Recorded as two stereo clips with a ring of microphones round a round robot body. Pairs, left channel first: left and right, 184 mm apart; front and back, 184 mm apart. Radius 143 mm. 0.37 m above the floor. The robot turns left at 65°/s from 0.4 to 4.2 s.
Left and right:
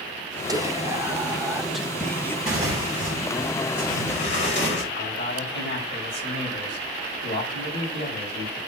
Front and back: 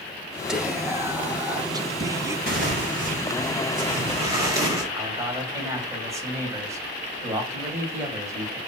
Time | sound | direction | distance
0.5 | whispering | 95° right | 0.9 m
2.5 | tearing paper | 140° right | 4 m
4.9 | a man speaking | 105° left | 3 m